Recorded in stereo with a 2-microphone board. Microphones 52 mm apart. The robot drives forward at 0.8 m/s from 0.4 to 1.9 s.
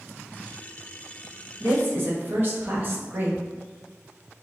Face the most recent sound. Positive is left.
turn(degrees=-40)  # may be behind; listen again after turning